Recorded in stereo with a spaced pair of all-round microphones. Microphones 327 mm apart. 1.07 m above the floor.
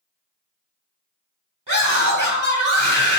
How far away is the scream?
About 3.5 m.